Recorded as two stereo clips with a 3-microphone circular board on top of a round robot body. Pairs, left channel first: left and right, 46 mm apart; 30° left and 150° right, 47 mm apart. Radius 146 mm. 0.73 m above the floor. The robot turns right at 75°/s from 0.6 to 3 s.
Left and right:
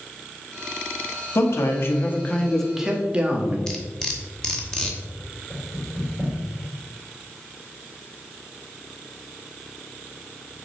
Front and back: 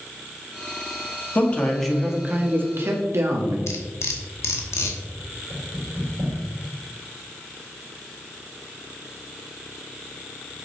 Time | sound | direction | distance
1.4 | a man speaking | 75° left | 1.7 m
3.7 | cutlery clinking | 15° left | 1.1 m
5.5 | knocking | 160° left | 3 m